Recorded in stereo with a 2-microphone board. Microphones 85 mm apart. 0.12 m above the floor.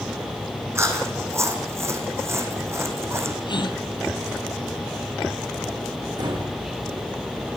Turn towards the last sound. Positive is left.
turn(degrees=-60)  # may be behind; listen again after turning